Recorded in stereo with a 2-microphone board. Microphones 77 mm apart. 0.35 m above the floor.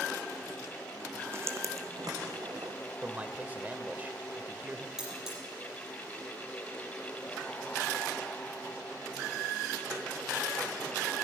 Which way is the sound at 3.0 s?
20° right (ahead or behind).